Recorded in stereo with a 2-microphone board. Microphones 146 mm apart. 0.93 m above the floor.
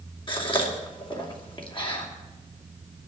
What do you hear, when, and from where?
0.3 s a gasp: 35° left (ahead or behind), 2.5 m